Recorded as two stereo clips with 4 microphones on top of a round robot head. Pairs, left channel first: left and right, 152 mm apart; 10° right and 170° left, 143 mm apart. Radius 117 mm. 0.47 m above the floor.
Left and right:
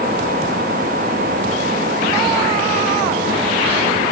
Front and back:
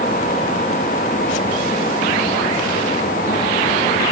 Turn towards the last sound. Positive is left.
No sound to turn to.